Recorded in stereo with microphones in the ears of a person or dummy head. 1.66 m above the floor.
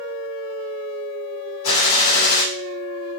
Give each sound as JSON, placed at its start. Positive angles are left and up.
{"t": 1.6, "sound": "a gunshot", "side_deg": 75, "distance_m": 2.5}